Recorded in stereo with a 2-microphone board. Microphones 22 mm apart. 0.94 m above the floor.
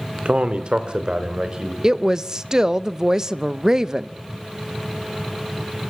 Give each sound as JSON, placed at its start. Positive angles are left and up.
{"t": 0.2, "sound": "a man speaking", "side_deg": -60, "distance_m": 2.0}
{"t": 1.8, "sound": "a woman speaking", "side_deg": -30, "distance_m": 0.7}